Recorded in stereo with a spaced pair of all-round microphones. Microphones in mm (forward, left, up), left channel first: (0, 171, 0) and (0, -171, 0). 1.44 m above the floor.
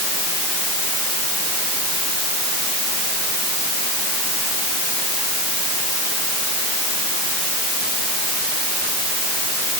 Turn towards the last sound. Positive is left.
No sound to turn to.